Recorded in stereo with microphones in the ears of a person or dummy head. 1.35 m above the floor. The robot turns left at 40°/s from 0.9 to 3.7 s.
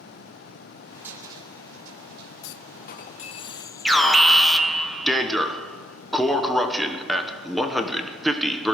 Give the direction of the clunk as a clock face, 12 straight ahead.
10 o'clock.